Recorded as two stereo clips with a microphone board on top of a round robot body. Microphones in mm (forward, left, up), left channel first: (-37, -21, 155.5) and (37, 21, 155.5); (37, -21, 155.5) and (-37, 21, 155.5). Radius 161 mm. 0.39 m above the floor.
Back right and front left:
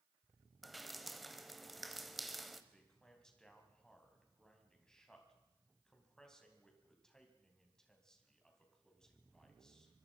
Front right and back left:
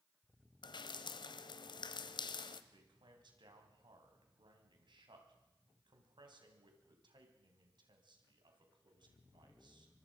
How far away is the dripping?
About 0.8 m.